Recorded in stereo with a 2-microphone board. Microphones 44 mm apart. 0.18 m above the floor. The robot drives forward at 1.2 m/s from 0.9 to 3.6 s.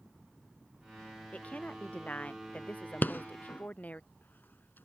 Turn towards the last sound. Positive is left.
turn(degrees=50)  # may be behind; listen again after turning